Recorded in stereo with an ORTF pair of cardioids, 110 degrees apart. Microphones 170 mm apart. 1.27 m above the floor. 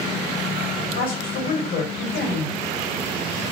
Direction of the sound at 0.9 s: 55° left.